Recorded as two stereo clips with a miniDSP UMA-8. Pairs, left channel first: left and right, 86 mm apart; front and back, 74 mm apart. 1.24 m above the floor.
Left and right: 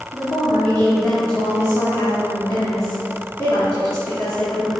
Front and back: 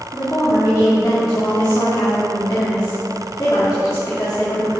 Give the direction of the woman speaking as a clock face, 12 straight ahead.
11 o'clock.